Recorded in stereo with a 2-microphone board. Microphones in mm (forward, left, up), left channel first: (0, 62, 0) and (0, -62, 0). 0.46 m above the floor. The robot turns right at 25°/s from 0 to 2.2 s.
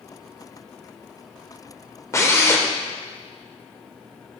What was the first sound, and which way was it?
A drill, 25° left (ahead or behind).